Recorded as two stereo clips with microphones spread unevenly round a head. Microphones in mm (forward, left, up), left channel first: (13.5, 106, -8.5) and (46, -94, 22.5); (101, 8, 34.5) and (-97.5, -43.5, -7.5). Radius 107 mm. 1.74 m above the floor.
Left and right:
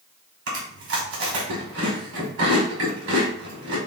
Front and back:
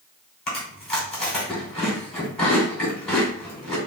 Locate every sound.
0.5 s chewing: 70° right, 1.9 m